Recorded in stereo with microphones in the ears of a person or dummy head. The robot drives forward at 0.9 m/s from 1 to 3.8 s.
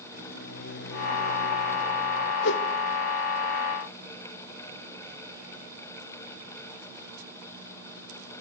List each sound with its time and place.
0.1 s a microwave: 55° left (ahead or behind), 0.6 m; by 2.3 s 25° left (ahead or behind), 1.2 m
2.4 s a whoosh: 60° left (ahead or behind), 1.1 m; by 2.6 s 65° left (ahead or behind), 1.1 m